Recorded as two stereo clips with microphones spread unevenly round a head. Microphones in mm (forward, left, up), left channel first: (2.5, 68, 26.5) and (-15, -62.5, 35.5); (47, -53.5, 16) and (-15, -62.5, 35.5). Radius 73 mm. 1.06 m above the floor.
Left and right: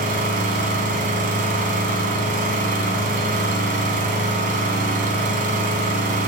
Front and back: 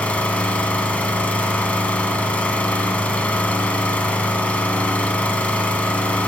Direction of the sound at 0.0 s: 65° right.